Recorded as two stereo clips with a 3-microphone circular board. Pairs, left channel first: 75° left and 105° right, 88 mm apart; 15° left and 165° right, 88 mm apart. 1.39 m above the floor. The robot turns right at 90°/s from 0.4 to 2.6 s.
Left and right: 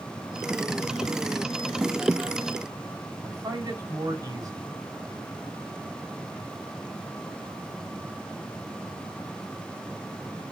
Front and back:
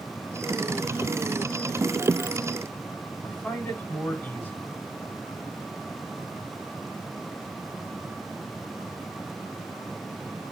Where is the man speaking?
60° right, 4.5 m.